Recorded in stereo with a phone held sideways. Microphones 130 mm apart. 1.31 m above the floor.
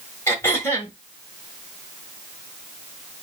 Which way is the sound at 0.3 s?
20° left (ahead or behind).